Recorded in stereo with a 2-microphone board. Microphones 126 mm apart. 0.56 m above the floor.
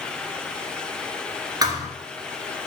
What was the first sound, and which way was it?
A thud, 30° right (ahead or behind).